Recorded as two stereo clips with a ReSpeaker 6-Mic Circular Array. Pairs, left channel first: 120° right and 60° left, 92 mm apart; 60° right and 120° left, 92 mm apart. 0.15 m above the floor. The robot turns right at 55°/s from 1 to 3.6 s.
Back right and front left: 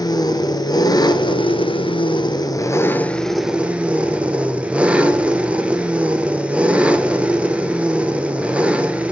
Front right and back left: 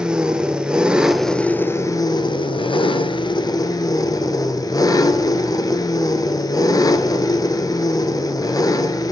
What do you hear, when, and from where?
0.0 s an engine running: 160° right, 0.9 m; by 9.1 s 15° right, 0.9 m